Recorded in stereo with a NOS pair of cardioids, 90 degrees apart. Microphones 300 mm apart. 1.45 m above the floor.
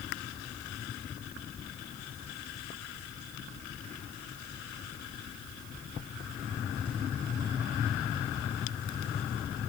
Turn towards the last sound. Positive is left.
No sound to turn to.